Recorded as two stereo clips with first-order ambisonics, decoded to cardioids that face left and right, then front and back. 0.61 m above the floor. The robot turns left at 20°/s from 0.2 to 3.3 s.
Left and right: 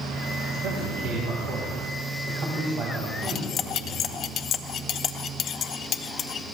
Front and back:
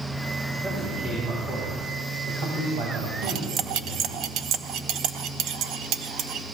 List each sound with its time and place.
0.6 s a man speaking: 100° right, 4.5 m; by 4.2 s 155° right, 4.5 m
3.2 s cutlery clinking: 145° left, 0.6 m; by 6.4 s 140° left, 0.6 m